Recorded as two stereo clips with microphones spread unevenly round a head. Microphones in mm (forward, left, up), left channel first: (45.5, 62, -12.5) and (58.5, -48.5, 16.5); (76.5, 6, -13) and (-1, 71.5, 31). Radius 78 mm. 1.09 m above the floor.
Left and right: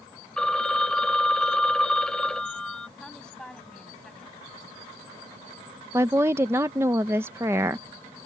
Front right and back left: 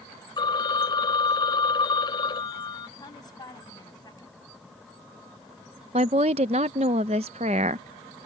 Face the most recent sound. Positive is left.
turn(degrees=-165)